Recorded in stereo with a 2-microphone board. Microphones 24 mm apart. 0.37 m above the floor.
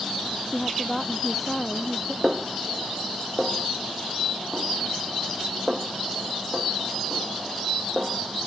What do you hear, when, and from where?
0.5 s a woman speaking: centre (ahead or behind)
2.2 s a snare drum: 30° right (ahead or behind)